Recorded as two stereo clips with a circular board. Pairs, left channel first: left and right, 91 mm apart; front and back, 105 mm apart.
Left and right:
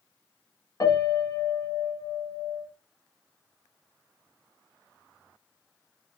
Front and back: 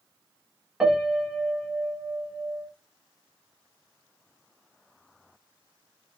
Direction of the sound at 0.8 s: 95° left.